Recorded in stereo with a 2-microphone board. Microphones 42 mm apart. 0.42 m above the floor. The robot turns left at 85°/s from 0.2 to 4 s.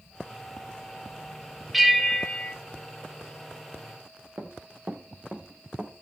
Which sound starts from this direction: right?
Running footsteps, at 4.4 s.